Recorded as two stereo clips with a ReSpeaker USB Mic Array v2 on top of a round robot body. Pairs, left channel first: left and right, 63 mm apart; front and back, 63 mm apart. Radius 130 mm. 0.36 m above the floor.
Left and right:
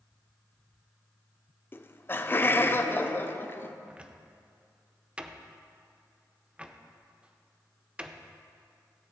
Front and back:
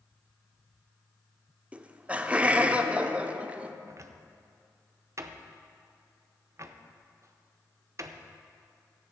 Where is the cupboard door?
160° right, 0.8 m.